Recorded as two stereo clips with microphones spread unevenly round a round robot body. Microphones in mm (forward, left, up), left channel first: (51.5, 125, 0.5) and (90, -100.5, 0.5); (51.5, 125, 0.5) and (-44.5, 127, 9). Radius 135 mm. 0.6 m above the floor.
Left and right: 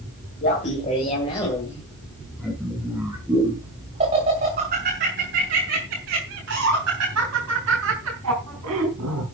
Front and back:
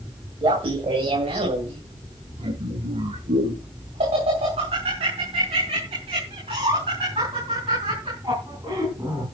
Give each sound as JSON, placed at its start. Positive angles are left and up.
{"t": 0.4, "sound": "laughter", "azimuth_deg": 160, "distance_m": 2.5}